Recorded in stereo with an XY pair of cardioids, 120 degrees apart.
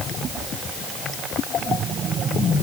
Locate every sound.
Only background noise.